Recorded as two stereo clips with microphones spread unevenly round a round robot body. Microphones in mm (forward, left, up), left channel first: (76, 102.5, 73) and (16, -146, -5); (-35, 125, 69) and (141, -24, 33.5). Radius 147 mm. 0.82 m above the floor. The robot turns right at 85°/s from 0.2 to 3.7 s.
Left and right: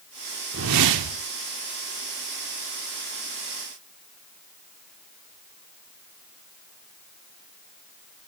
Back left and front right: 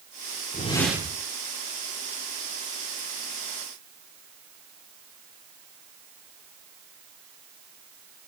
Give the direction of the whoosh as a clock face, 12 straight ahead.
5 o'clock.